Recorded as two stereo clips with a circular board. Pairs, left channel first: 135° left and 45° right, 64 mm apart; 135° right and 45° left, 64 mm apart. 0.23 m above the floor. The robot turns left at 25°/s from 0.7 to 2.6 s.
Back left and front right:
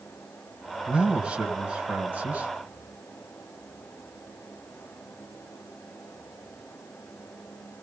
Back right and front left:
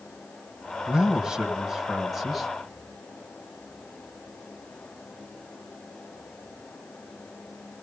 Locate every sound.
0.9 s a man speaking: 10° right, 1.3 m; by 2.5 s 50° right, 1.3 m